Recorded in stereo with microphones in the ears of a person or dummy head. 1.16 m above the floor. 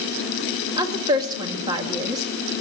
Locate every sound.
0.8 s a woman speaking: 25° right (ahead or behind), 1.8 m